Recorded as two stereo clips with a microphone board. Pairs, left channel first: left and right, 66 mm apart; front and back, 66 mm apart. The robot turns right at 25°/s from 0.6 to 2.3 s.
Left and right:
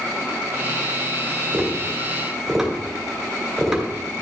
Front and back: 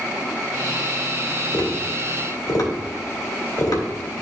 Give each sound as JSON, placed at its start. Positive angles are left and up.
{"t": 1.5, "sound": "tapping", "azimuth_deg": -30, "distance_m": 2.5}